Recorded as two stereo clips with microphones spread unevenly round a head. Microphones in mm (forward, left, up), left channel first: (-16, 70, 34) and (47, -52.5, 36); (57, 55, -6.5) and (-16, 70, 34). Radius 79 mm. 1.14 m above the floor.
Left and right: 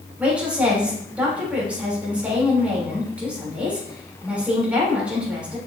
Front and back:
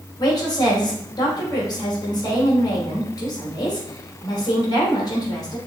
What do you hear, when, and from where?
0.2 s a woman speaking: 20° left, 3.5 m